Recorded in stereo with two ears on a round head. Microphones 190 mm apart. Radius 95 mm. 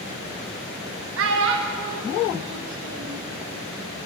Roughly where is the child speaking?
Right.